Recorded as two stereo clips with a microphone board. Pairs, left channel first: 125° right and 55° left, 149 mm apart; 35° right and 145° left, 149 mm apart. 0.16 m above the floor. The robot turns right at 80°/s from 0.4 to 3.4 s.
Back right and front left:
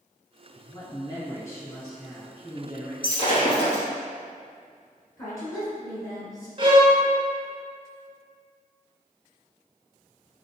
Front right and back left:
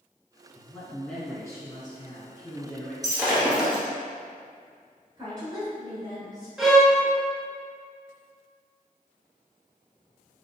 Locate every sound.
0.6 s a man speaking: 160° right, 1.6 m; by 2.9 s 30° left, 1.6 m
3.0 s breaking glass: 160° right, 1.2 m; by 3.8 s 130° right, 1.2 m
5.2 s a woman speaking: 175° right, 2.0 m
6.6 s a violin: 60° left, 0.6 m